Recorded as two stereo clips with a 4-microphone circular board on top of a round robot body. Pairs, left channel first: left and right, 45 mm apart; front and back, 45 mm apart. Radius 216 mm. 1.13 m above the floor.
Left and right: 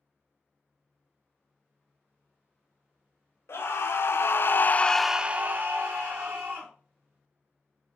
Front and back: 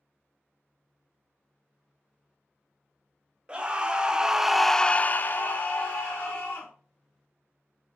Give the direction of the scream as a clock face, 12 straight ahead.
8 o'clock.